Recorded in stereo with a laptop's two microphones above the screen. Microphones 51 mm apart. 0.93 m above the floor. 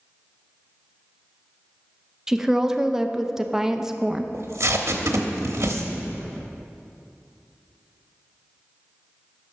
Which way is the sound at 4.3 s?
65° right (ahead or behind).